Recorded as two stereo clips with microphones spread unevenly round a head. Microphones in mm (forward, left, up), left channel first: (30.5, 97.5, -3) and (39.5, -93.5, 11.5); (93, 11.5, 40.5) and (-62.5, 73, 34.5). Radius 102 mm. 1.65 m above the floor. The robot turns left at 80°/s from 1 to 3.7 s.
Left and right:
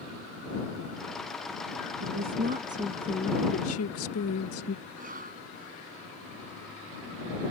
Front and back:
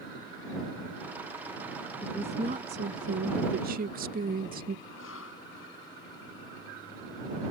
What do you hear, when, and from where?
2.0 s a woman speaking: 105° right; by 4.8 s 120° left
4.8 s a cough: 40° right